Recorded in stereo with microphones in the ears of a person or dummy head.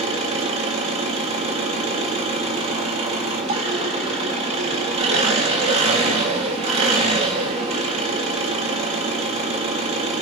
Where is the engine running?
30° right (ahead or behind), 1.5 m.